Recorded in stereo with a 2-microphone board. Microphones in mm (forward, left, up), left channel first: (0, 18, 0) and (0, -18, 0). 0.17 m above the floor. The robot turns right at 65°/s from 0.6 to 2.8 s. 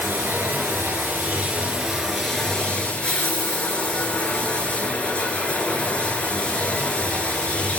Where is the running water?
110° right, 1.8 m; by 7.8 s 35° left, 1.8 m.